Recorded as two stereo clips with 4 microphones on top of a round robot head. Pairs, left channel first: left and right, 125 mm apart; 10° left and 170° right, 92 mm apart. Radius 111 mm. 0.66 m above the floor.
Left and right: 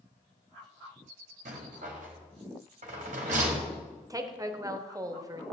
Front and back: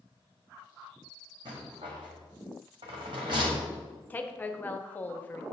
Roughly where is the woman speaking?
Ahead right.